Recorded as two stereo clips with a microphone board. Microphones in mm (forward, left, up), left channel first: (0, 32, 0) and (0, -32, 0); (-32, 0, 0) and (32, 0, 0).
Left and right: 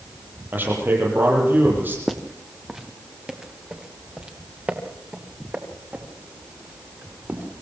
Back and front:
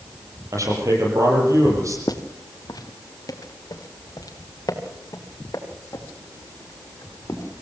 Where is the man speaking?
35° right, 8 m.